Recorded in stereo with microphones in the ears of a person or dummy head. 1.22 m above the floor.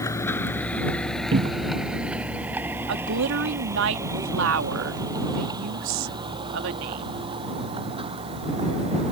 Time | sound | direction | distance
0.0 | a vehicle | 20° left (ahead or behind) | ?
1.3 | a cupboard door | 25° right (ahead or behind) | ?
2.9 | a woman speaking | 70° right (ahead or behind) | ?